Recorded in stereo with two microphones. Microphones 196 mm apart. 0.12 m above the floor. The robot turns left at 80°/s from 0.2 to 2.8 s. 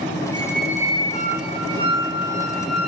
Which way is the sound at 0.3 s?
25° left.